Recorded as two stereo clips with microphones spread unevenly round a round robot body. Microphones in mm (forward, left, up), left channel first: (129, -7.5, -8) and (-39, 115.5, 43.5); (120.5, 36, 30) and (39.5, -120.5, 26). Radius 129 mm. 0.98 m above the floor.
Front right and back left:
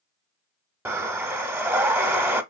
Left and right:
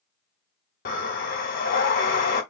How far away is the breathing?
About 0.8 m.